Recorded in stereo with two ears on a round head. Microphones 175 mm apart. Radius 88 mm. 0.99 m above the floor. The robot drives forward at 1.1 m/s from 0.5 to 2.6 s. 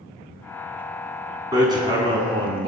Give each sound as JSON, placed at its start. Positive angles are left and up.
{"t": 1.5, "sound": "hammering", "side_deg": -20, "distance_m": 3.5}